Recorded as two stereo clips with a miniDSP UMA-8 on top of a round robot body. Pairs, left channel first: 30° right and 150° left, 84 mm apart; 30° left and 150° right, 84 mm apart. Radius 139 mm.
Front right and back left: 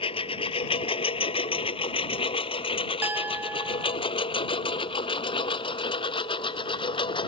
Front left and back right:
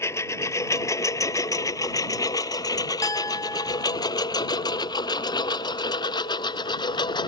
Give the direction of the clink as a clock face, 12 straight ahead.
9 o'clock.